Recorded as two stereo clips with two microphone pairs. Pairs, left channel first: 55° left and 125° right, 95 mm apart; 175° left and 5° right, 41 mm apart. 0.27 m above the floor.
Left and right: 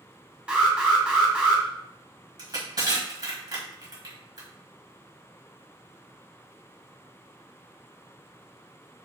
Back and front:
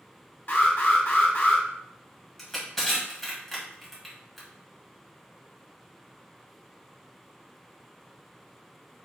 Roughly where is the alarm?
Behind.